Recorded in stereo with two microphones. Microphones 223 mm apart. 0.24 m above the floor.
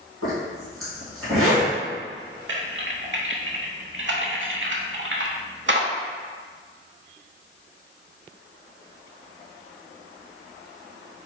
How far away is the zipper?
About 1.9 m.